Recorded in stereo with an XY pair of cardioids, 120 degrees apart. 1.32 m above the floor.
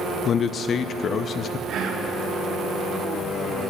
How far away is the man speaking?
About 0.5 m.